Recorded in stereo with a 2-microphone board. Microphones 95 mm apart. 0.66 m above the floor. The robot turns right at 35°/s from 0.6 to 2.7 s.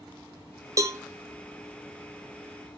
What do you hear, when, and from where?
0.8 s a cowbell: 35° right (ahead or behind), 0.7 m; by 1.0 s 30° right (ahead or behind), 0.7 m